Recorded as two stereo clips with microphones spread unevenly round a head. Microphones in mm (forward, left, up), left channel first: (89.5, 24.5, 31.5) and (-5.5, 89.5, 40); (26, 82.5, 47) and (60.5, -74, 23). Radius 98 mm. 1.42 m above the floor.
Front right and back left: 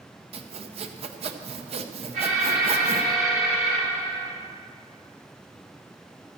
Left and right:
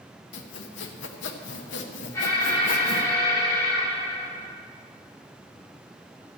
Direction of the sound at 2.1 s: Straight behind.